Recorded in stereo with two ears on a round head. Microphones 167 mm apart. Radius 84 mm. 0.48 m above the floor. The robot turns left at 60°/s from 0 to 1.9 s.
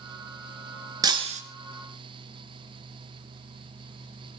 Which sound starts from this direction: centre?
Breaking glass, at 1.0 s.